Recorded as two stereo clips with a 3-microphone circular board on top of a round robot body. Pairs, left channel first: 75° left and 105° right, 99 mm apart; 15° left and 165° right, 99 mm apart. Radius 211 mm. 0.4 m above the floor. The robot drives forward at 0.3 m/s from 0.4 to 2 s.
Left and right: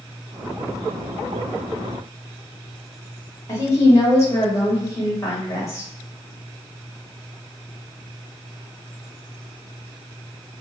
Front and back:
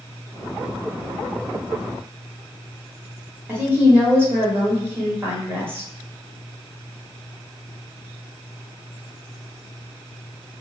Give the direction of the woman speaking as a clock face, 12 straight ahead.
8 o'clock.